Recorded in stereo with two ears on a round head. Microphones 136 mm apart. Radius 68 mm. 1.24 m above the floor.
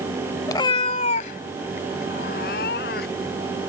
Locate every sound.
0.5 s a cat meowing: 25° left (ahead or behind); by 3.4 s 75° left (ahead or behind)